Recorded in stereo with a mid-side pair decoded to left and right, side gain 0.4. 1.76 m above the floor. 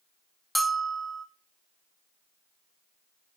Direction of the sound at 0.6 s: 10° right.